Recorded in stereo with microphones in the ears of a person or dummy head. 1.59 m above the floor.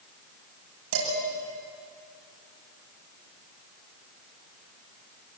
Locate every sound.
0.9 s dishes clattering: 80° right, 7 m